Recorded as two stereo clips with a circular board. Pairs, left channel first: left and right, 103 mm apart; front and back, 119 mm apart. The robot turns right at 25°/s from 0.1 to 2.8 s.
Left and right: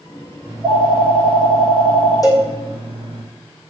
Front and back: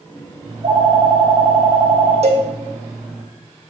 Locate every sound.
0.5 s a phone ringing: 155° right, 1.7 m; by 3.2 s 95° right, 1.7 m
2.2 s a cowbell: 145° left, 1.1 m; by 2.5 s 150° left, 1.1 m